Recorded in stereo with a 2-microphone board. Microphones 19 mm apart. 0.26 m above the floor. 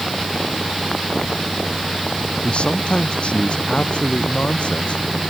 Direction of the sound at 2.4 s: 60° left (ahead or behind).